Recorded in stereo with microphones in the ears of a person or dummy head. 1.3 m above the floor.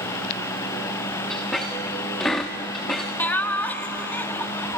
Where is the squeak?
5° left (ahead or behind), 0.8 m.